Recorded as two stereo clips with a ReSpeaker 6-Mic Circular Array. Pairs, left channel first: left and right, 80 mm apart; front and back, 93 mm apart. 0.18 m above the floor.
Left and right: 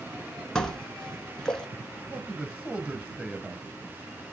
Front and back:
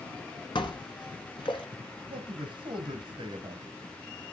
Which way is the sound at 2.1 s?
160° right.